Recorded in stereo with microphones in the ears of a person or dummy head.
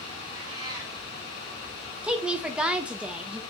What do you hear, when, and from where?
0.3 s a cat meowing: 15° right (ahead or behind), 1.8 m
2.0 s a woman speaking: 5° right (ahead or behind), 0.6 m